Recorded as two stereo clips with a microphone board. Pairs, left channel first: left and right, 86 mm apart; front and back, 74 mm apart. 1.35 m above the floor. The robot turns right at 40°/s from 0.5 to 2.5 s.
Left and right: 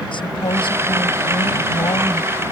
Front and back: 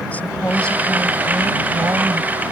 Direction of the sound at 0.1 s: 70° left.